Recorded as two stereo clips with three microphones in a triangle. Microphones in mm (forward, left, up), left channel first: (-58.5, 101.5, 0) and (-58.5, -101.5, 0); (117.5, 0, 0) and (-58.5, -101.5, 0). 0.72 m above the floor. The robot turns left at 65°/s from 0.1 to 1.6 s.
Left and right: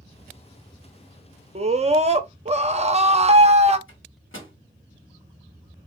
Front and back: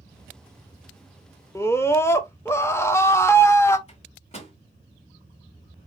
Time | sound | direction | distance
1.6 | a scream | 40° right | 0.7 m
3.9 | a microwave | 85° left | 1.5 m